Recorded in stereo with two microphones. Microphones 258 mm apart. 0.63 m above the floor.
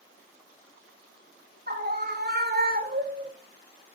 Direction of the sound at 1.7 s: 40° right (ahead or behind).